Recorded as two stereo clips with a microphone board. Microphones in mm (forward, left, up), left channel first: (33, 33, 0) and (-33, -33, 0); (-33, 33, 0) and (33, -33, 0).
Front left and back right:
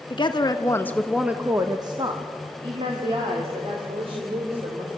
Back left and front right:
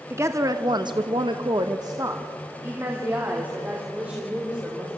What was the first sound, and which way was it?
A woman speaking, 15° left.